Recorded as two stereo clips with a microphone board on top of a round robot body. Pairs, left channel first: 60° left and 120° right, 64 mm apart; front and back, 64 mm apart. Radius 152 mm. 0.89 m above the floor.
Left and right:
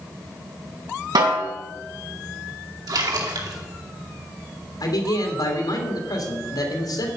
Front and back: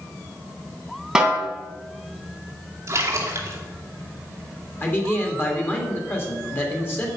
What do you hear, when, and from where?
1.1 s a snare drum: 100° right, 2.5 m
2.9 s a splash: 130° right, 2.5 m
4.8 s a man speaking: 55° left, 3 m